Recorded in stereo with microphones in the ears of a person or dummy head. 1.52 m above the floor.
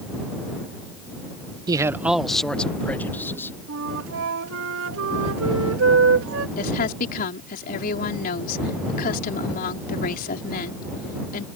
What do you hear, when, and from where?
1.7 s a man speaking: 25° right (ahead or behind); by 3.5 s 15° left (ahead or behind)
3.7 s a flute: 80° right
6.6 s a woman speaking: 50° left (ahead or behind)